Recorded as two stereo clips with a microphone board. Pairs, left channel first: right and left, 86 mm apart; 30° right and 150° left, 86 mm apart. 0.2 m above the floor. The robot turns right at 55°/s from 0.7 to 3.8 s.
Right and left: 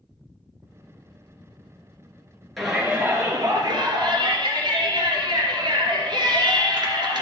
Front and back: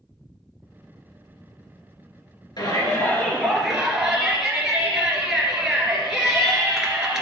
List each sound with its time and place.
2.6 s a shout: straight ahead, 3.5 m; by 7.2 s 65° left, 3.5 m